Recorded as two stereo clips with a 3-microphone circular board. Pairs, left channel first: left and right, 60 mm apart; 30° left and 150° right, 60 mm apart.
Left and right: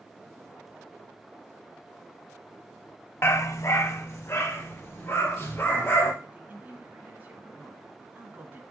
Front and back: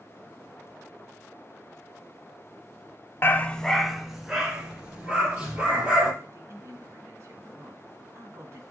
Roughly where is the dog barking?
Ahead left.